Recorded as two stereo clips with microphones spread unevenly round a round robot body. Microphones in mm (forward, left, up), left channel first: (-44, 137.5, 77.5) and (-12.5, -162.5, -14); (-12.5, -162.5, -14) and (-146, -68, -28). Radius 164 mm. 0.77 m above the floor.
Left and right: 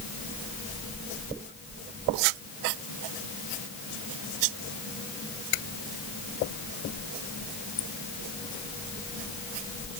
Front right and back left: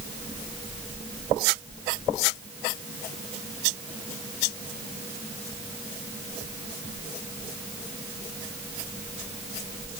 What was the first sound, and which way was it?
Only background noise.